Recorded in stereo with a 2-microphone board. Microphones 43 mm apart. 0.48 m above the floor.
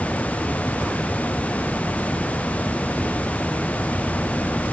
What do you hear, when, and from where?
Only background noise.